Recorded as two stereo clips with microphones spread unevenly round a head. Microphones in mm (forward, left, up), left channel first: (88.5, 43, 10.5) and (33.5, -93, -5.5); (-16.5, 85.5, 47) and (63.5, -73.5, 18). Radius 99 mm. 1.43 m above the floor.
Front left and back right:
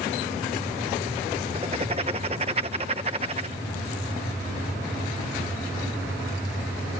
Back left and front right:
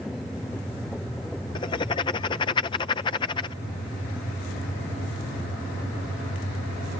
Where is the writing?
175° right.